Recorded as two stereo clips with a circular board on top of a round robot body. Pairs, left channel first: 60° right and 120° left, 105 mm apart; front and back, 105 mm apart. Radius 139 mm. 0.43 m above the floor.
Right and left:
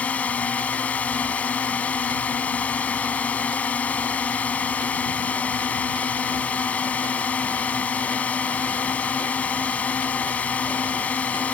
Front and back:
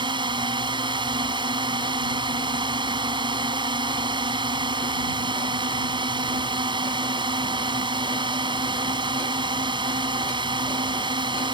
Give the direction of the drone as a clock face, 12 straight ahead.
5 o'clock.